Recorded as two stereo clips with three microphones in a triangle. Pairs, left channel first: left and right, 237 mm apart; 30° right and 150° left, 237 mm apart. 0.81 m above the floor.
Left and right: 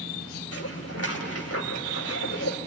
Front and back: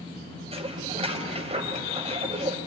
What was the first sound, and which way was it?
Dishes clattering, 85° left.